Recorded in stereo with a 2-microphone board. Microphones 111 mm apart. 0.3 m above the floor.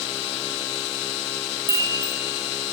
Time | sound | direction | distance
1.7 | a chime | 30° right (ahead or behind) | 6.5 m